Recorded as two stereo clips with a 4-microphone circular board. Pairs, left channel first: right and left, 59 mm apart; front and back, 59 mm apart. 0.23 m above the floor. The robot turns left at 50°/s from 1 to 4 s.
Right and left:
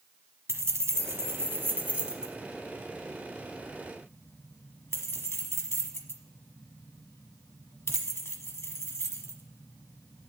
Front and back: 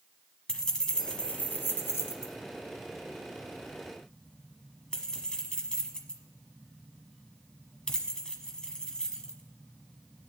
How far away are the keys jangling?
About 1.1 m.